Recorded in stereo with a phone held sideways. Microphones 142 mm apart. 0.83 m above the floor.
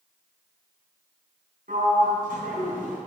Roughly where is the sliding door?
Right.